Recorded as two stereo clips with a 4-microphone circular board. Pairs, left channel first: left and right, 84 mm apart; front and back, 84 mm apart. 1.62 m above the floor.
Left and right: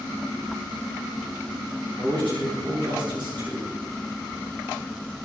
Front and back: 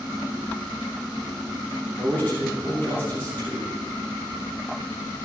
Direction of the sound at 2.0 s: 65° right.